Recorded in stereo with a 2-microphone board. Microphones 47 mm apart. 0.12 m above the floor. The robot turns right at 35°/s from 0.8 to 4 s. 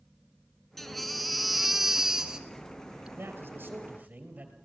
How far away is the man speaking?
About 3 m.